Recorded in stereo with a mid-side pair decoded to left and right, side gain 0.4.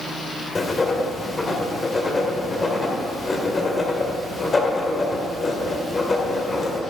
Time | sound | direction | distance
0.6 | writing | 35° left | 1.6 m